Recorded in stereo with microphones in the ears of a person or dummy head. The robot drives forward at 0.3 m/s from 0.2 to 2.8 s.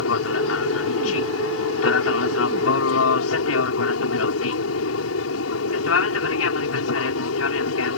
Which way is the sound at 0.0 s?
80° left.